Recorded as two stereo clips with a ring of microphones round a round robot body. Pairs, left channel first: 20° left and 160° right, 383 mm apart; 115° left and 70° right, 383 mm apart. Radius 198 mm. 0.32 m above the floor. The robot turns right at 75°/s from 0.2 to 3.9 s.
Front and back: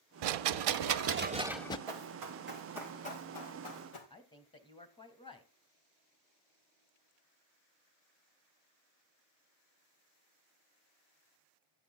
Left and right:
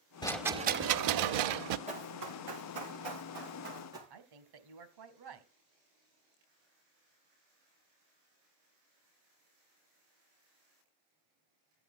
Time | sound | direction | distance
0.2 | a rattle | 170° right | 0.9 m
1.9 | running footsteps | 140° right | 5 m
4.1 | a woman speaking | 55° right | 2 m